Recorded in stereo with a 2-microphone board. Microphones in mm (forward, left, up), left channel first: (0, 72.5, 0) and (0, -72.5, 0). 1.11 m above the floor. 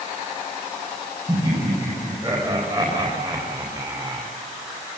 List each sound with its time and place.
1.3 s laughter: 30° right (ahead or behind), 6 m; by 4.3 s 25° right (ahead or behind), 3.5 m